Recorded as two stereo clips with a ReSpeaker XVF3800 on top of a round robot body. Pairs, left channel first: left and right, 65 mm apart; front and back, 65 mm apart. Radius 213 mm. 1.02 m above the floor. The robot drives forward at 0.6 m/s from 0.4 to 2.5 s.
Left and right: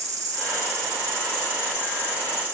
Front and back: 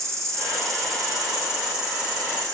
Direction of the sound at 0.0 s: 135° right.